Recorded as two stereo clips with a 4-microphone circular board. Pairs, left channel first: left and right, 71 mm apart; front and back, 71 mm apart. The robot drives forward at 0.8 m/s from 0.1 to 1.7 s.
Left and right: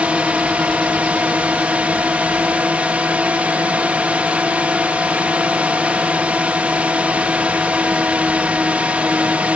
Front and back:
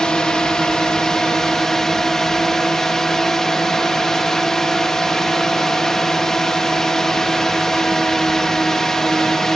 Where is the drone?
60° right; by 9.6 s 70° right.